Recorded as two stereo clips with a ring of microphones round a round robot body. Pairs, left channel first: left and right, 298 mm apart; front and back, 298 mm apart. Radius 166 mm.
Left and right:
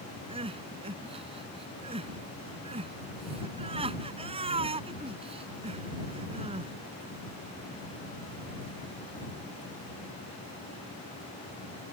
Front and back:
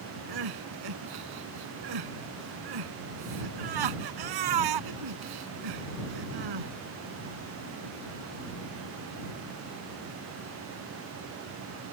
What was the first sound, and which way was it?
Crying, 165° right.